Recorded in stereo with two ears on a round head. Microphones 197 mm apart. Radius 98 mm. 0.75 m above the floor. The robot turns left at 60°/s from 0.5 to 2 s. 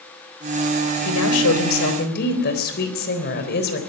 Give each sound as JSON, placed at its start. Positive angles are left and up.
{"t": 1.1, "sound": "a woman speaking", "azimuth_deg": 105, "distance_m": 4.0}